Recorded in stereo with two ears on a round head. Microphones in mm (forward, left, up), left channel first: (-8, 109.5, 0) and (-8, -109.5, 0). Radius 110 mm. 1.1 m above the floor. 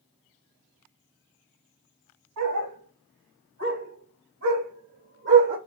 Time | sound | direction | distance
2.4 | a dog barking | 70° right (ahead or behind) | 2.5 m